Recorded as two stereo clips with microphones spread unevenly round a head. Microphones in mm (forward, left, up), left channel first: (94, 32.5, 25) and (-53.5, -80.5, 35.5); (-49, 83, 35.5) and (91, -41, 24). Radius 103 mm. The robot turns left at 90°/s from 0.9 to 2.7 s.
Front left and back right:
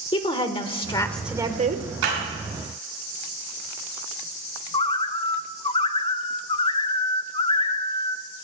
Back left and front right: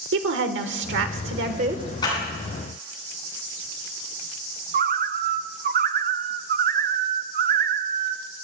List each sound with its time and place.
0.1 s a woman speaking: 25° right, 1.4 m; by 1.8 s 110° right, 1.4 m
2.0 s a clap: 150° right, 7.5 m; by 2.1 s 160° right, 7.5 m
4.7 s a bird: 20° right, 0.5 m